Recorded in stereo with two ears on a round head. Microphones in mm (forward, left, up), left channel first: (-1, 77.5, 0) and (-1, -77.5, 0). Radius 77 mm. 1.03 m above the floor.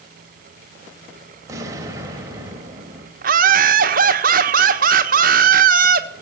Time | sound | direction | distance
1.5 | an explosion | 20° right (ahead or behind) | 2 m
3.2 | laughter | 55° right (ahead or behind) | 1.2 m